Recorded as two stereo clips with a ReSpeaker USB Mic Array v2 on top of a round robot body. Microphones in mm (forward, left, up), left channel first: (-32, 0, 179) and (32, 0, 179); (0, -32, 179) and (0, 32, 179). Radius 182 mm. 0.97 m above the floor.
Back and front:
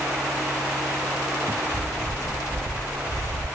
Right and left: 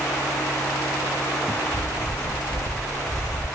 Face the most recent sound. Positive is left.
turn(degrees=-125)